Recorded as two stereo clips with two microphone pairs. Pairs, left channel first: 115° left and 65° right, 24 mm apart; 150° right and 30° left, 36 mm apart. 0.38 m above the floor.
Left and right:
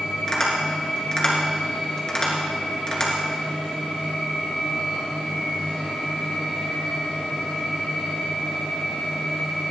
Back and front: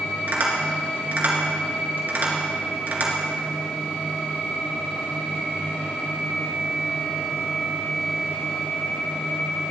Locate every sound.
0.3 s tapping: 55° left, 3 m